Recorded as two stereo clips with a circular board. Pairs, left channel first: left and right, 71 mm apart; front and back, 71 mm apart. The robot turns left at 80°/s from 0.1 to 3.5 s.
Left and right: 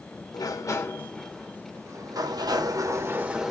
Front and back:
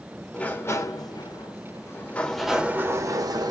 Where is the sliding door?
80° left, 0.8 m; by 3.5 s 175° right, 0.8 m.